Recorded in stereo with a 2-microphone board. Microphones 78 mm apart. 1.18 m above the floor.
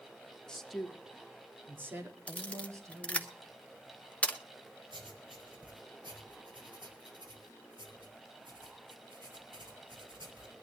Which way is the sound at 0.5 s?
10° left (ahead or behind).